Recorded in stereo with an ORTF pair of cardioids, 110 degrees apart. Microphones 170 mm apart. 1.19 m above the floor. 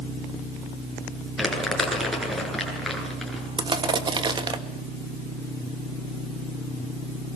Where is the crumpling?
Straight ahead, 10 m.